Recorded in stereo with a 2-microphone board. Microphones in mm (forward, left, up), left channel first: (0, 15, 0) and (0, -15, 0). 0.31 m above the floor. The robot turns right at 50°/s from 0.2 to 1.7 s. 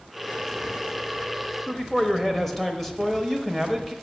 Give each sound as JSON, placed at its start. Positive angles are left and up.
{"t": 1.7, "sound": "a man speaking", "side_deg": 5, "distance_m": 0.9}